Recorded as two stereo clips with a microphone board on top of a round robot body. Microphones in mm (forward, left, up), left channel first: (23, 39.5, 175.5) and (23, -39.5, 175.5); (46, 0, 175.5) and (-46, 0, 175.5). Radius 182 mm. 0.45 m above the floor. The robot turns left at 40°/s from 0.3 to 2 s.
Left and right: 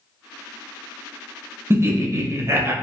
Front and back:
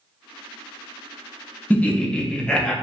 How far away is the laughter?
About 0.7 m.